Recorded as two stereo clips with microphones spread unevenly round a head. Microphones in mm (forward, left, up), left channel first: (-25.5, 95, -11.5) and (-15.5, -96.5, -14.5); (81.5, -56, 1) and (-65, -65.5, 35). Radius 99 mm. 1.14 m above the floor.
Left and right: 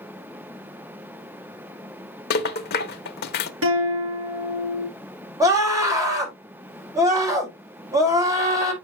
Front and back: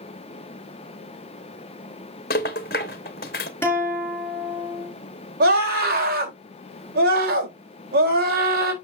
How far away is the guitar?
About 5 m.